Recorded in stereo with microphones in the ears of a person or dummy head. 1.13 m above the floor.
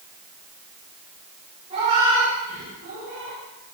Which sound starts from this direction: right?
A cat meowing, at 1.7 s.